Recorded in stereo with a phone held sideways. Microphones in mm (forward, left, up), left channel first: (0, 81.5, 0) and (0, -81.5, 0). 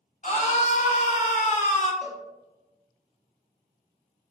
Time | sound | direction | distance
0.2 | a scream | 45° left (ahead or behind) | 1.0 m
2.0 | a cowbell | 5° right (ahead or behind) | 1.2 m